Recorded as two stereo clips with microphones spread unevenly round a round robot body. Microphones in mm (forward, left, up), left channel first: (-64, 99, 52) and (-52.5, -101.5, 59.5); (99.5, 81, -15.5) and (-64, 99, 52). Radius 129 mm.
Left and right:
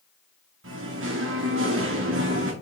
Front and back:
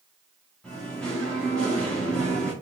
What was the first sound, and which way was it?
Singing, 80° right.